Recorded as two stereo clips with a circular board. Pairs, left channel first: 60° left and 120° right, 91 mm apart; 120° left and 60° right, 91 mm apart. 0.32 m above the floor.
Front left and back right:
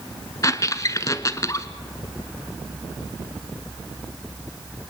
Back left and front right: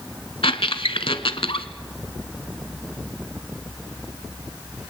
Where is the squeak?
110° left, 0.9 m.